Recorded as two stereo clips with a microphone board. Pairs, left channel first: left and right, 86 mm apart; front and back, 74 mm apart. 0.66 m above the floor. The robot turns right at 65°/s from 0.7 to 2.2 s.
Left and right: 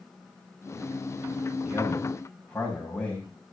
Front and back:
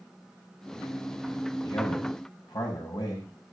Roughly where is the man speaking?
Ahead right.